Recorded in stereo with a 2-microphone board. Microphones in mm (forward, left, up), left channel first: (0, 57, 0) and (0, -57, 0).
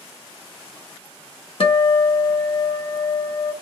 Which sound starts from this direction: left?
A guitar, at 1.6 s.